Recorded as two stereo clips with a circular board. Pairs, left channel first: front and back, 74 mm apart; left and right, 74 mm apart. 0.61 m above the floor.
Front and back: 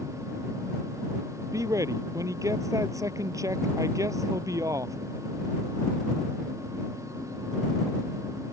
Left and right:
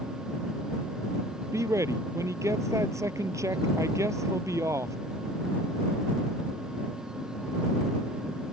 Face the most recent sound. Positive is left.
turn(degrees=-140)